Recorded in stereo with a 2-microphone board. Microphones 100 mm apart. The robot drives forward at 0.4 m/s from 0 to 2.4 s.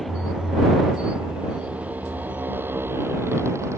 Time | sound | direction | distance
0.0 | a motorcycle | centre (ahead or behind) | ?